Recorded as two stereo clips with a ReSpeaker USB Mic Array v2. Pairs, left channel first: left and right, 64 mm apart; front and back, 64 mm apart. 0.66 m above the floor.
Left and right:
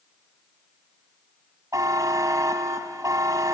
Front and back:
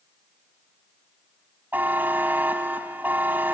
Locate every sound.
1.7 s a buzzer: 120° right, 1.2 m